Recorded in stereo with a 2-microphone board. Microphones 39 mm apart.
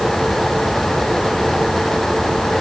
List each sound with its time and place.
Only background noise.